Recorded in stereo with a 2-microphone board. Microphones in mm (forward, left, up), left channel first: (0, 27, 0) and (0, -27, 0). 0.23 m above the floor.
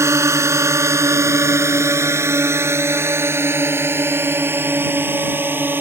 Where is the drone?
60° right (ahead or behind); by 5.8 s 40° right (ahead or behind).